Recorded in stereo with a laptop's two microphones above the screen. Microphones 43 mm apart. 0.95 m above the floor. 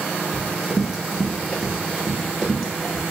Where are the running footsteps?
5° right (ahead or behind), 0.9 m; by 3.0 s centre (ahead or behind), 1.7 m.